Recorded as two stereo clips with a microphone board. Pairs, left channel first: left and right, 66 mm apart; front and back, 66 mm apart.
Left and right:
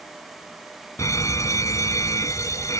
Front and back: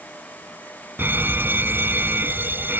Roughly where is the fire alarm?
Behind left.